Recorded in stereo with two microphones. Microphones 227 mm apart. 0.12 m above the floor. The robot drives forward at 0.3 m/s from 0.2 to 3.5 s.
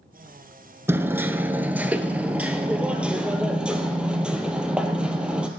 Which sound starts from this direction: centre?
Hammering, at 0.9 s.